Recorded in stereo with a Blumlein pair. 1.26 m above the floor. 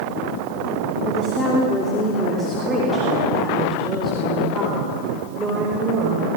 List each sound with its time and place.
1.1 s a woman speaking: 20° left, 3 m; by 6.3 s 15° right, 5 m